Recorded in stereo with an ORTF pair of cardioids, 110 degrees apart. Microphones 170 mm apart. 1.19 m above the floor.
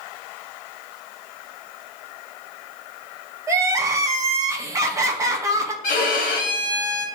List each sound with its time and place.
3.5 s crying: 20° right, 0.9 m
5.8 s a violin: 55° left, 1.2 m